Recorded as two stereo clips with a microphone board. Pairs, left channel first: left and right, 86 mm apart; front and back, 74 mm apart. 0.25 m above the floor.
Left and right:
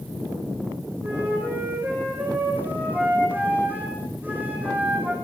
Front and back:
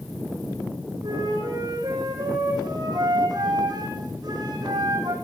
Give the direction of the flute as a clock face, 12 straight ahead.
5 o'clock.